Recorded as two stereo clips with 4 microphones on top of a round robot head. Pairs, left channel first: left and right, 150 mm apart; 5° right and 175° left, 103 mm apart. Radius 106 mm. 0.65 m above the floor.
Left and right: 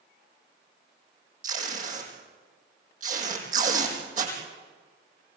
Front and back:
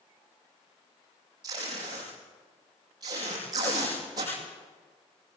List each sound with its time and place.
1.4 s tape being pulled: 120° right, 5.5 m